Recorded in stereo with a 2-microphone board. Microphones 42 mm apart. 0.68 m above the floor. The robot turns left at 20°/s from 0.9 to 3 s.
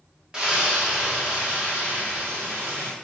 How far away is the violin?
No violin in this recording.